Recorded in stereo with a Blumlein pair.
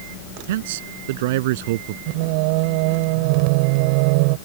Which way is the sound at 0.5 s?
55° right.